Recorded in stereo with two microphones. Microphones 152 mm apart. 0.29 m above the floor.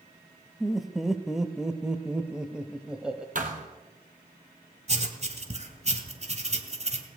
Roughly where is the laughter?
Centre.